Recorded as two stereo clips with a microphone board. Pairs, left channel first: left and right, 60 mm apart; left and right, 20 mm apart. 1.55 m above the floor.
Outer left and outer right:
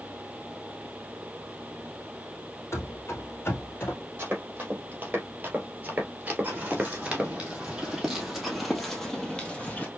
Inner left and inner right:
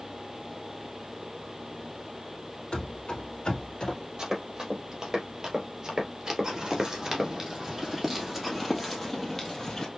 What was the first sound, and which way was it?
Running footsteps, 50° left (ahead or behind).